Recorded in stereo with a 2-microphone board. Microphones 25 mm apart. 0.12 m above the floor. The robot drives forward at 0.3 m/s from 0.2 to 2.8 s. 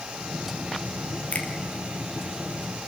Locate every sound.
1.3 s a finger snap: 65° left (ahead or behind), 3.5 m